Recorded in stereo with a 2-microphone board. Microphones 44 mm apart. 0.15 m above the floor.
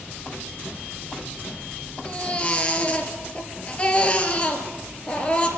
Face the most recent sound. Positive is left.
turn(degrees=25)  # may be behind; listen again after turning